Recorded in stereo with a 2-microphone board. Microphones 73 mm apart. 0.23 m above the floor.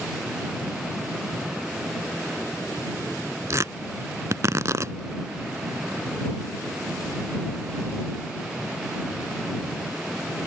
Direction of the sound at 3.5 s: 50° right (ahead or behind).